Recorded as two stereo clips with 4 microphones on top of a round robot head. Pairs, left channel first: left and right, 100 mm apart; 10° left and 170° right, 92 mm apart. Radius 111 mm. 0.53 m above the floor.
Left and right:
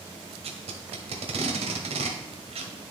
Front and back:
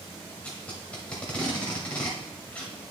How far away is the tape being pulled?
About 1.1 m.